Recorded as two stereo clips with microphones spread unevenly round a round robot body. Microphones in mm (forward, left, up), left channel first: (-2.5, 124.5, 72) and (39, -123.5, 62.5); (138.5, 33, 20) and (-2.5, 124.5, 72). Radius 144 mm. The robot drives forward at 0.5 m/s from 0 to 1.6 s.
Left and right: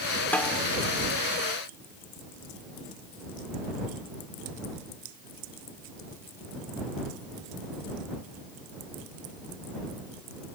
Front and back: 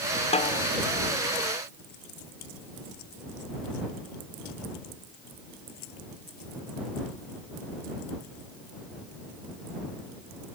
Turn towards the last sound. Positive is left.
turn(degrees=20)